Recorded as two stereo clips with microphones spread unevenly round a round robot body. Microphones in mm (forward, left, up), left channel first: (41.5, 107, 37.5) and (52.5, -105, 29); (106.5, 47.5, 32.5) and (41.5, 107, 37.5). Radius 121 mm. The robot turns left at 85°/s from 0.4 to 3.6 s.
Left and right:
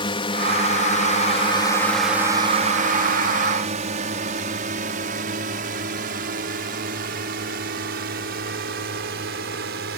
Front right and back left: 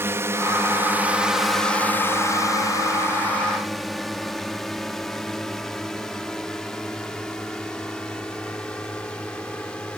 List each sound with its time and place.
0.0 s a drone: 130° left; by 10.0 s 125° right